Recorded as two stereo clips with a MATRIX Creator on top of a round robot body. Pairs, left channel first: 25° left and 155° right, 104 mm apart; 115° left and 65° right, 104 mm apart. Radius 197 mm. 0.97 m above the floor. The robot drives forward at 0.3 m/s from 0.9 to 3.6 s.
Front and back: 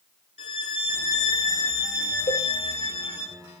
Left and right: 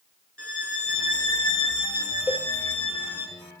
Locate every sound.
0.4 s a violin: 30° left, 5.5 m; by 3.3 s 35° left, 4.5 m
2.3 s a cowbell: 20° left, 7.5 m